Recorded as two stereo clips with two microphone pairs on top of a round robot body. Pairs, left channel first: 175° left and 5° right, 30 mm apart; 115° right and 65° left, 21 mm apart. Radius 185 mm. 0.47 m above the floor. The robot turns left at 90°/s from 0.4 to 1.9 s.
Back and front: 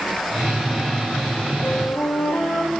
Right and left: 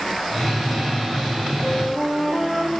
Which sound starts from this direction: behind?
A flute, at 1.6 s.